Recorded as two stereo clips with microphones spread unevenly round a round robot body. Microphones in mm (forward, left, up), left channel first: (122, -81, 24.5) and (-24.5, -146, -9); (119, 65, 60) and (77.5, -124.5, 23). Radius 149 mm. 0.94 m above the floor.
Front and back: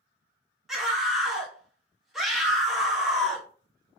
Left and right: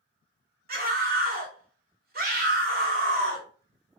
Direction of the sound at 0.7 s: 70° right.